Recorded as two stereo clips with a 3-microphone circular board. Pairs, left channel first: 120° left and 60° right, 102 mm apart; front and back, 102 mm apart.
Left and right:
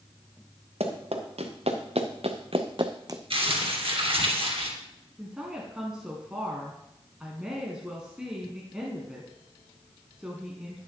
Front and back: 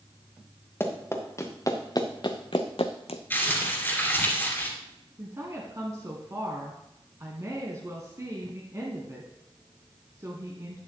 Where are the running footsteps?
70° right, 1.8 m; by 3.2 s straight ahead, 0.8 m.